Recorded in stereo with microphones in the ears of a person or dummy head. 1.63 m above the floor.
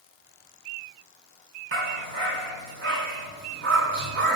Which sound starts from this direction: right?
A dog barking, at 1.7 s.